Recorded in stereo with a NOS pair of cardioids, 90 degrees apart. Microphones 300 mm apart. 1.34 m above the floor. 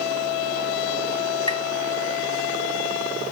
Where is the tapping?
15° left, 3.5 m.